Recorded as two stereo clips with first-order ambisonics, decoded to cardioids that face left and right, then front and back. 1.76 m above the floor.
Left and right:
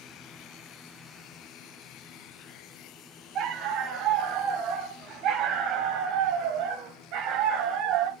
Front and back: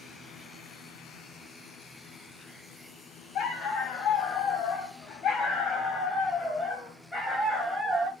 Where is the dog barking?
45° right, 4 m; by 8.1 s 95° right, 3 m.